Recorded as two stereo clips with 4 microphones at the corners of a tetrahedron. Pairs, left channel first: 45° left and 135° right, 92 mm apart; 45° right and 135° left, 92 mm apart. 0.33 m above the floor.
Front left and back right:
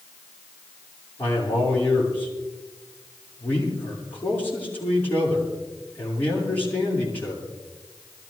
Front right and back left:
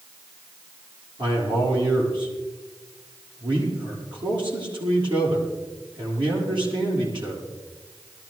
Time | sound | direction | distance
1.2 | a man speaking | 110° left | 7.5 m